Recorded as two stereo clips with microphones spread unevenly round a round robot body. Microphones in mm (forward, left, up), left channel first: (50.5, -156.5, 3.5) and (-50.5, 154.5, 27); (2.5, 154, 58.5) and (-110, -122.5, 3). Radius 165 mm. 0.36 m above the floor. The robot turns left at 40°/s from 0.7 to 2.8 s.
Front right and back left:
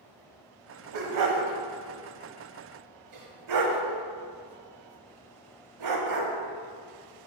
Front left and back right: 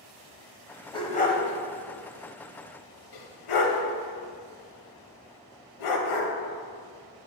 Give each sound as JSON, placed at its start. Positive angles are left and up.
{"t": 0.9, "sound": "a dog barking", "azimuth_deg": 145, "distance_m": 0.9}